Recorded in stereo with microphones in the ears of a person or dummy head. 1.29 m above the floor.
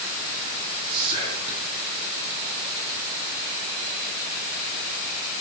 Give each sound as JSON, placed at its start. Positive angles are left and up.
{"t": 0.9, "sound": "whispering", "side_deg": -20, "distance_m": 2.5}